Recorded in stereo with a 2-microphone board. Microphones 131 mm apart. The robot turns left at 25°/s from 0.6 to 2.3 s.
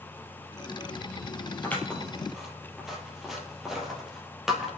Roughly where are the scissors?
Centre.